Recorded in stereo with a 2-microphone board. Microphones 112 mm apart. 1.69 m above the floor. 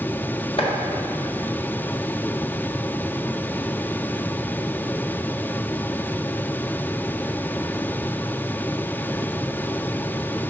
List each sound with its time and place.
0.6 s chopping: 55° left (ahead or behind), 1.4 m